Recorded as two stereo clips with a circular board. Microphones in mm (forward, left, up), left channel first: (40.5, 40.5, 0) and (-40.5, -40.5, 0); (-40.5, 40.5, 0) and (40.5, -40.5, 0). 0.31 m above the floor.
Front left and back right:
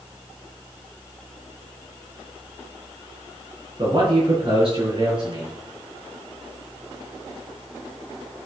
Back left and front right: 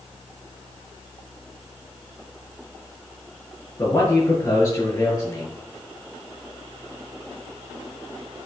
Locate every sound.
3.8 s a man speaking: 175° right, 5 m